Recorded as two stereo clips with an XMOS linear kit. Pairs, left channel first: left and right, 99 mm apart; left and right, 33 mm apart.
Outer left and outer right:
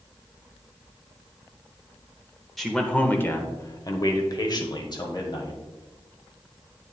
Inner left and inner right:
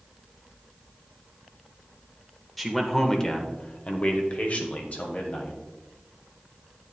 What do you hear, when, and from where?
2.6 s a man speaking: centre (ahead or behind), 0.8 m; by 5.6 s 45° left (ahead or behind), 1.8 m